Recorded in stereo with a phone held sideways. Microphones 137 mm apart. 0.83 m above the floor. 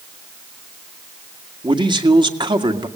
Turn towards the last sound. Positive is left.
turn(degrees=-35)  # may be behind; listen again after turning